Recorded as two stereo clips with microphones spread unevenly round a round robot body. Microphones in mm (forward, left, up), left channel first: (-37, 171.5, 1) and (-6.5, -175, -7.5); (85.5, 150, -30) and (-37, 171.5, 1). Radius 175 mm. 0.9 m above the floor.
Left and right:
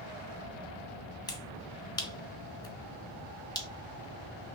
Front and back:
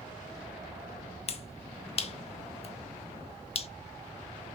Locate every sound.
1.3 s a finger snap: 15° left, 0.6 m